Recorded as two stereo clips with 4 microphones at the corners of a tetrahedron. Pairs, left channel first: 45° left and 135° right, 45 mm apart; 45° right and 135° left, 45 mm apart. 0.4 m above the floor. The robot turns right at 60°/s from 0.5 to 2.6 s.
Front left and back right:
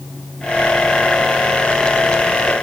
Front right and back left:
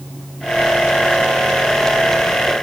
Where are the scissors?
No scissors in this recording.